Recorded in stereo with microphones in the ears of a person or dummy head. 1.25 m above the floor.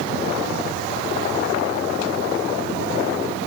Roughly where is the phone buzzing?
I don't hear a phone buzzing.